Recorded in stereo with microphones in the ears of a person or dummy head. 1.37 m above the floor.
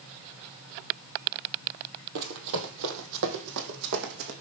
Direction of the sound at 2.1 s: 60° right (ahead or behind).